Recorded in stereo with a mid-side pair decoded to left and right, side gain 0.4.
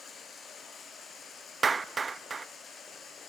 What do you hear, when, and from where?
0.0 s running water: 60° left, 3.5 m
1.6 s a clap: 35° right, 0.6 m